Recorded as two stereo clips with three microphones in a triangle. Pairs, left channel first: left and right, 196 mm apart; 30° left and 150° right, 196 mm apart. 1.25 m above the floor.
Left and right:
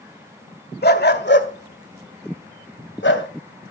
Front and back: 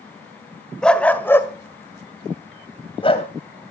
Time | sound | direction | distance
0.8 | a dog barking | 115° left | 1.7 m